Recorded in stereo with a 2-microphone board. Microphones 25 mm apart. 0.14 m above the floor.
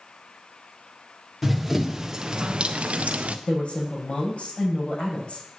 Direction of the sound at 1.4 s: Centre (ahead or behind).